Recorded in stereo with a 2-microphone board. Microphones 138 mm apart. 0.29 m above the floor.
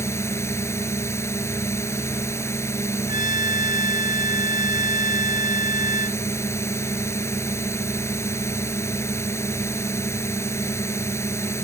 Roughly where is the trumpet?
Left.